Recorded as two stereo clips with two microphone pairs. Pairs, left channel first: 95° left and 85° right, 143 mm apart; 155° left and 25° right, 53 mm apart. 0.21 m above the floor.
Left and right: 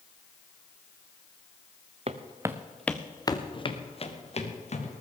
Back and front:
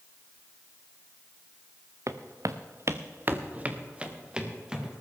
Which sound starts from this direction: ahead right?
Footsteps, at 2.1 s.